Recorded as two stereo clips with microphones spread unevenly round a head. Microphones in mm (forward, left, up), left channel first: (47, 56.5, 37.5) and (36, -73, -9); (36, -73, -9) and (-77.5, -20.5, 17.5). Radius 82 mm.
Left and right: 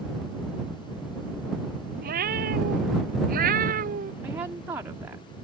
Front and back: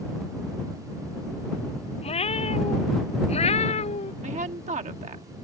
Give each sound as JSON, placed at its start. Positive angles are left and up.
{"t": 2.0, "sound": "a cat meowing", "azimuth_deg": -70}
{"t": 4.2, "sound": "a woman speaking", "azimuth_deg": -170}